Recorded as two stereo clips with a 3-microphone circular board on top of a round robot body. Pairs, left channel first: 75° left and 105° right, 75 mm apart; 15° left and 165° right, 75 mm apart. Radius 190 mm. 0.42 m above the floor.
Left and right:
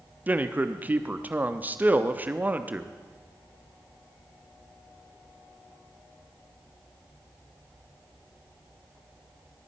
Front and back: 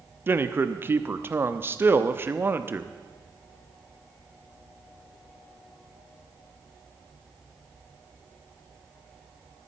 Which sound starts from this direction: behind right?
A man speaking, at 0.3 s.